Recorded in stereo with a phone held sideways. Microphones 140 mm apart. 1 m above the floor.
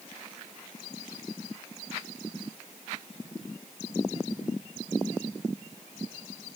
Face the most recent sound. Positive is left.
No sound to turn to.